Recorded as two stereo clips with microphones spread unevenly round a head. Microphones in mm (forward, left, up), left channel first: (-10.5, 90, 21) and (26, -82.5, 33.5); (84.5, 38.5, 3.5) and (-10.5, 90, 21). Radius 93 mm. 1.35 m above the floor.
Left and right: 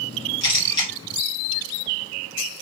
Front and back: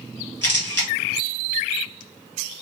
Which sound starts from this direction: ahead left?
A camera shutter, at 0.4 s.